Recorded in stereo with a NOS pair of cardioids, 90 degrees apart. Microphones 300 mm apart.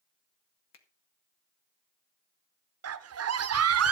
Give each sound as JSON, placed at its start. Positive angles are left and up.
{"t": 0.7, "sound": "a finger snap", "azimuth_deg": 55, "distance_m": 2.0}
{"t": 2.8, "sound": "a scream", "azimuth_deg": -50, "distance_m": 1.5}